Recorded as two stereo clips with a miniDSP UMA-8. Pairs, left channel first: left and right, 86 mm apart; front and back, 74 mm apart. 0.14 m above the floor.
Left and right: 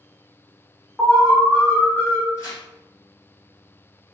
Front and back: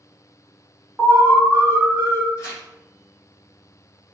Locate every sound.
1.0 s an alarm: 155° left, 1.7 m
2.4 s tearing paper: 40° left, 1.9 m